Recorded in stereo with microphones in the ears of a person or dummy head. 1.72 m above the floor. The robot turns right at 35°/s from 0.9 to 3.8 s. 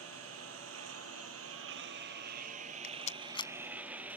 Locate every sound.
0.0 s a lawn mower: 80° right; by 4.2 s 5° right (ahead or behind)
2.8 s a rattle: 45° left (ahead or behind); by 3.5 s 20° left (ahead or behind)